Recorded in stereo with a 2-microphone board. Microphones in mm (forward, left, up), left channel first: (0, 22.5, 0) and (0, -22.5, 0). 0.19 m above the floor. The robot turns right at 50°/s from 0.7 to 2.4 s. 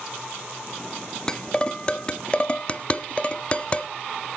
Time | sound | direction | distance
1.3 | dishes clattering | 15° left (ahead or behind) | 0.7 m